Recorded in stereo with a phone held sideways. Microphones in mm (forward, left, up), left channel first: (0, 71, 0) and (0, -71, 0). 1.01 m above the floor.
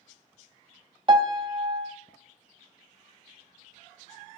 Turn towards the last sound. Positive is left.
turn(degrees=-35)  # may be behind; listen again after turning